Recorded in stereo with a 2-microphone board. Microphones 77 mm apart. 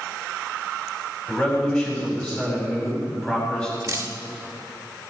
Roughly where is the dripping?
Right.